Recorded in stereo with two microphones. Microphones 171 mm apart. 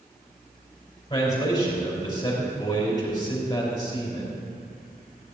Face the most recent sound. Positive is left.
turn(degrees=30)  # may be behind; listen again after turning